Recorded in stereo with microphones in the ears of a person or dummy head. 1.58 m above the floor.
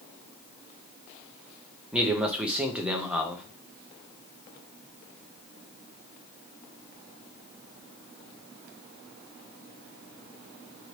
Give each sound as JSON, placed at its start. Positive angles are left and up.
{"t": 1.9, "sound": "a man speaking", "side_deg": -10, "distance_m": 0.5}